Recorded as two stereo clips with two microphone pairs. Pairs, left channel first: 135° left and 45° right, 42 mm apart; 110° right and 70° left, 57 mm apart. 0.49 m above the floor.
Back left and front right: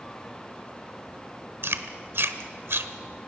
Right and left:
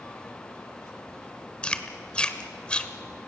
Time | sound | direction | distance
1.6 | chewing | 35° right | 1.2 m